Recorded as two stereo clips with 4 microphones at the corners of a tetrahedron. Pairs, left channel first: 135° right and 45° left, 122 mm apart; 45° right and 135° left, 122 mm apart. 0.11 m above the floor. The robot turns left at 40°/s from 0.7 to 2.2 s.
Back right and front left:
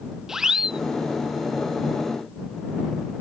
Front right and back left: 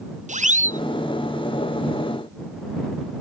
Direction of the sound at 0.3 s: 130° left.